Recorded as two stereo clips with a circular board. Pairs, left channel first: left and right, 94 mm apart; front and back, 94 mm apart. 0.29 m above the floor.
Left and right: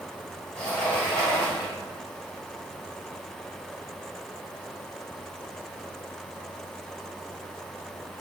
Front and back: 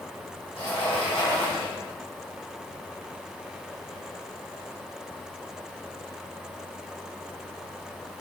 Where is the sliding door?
10° left, 1.9 m.